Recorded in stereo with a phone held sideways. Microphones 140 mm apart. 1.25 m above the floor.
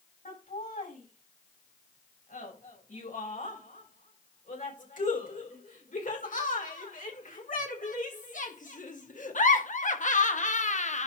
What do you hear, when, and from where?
0.2 s laughter: 75° left (ahead or behind), 6.5 m; by 11.1 s 60° left (ahead or behind), 1.0 m